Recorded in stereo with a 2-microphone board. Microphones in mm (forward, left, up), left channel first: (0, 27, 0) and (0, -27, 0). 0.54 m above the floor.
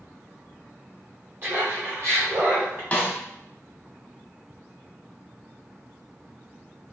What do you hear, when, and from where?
1.4 s laughter: 45° right (ahead or behind), 1.5 m; by 2.8 s 55° right (ahead or behind), 1.9 m
2.9 s a snare drum: 25° left (ahead or behind), 0.8 m